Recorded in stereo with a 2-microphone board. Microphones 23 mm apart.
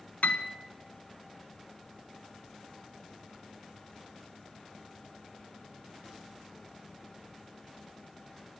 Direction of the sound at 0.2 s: 85° left.